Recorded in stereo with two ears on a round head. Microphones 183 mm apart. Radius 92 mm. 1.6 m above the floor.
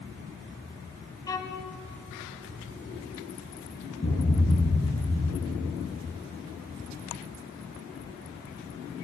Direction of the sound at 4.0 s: 40° left (ahead or behind).